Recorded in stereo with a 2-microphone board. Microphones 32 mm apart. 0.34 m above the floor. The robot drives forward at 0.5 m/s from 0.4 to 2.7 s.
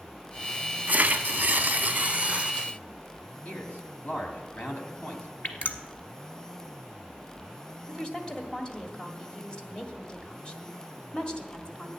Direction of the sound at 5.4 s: 65° left (ahead or behind).